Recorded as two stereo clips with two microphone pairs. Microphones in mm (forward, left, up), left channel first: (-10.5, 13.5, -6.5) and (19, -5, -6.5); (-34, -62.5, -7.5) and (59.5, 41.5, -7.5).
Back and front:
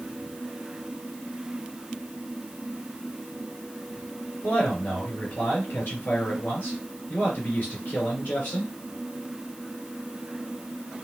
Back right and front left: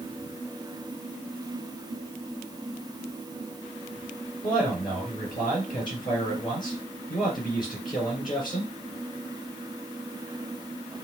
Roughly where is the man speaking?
Behind.